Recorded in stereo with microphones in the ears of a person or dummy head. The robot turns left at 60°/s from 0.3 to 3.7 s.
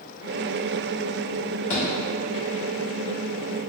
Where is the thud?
45° left (ahead or behind), 1.5 m; by 1.8 s 50° left (ahead or behind), 1.5 m.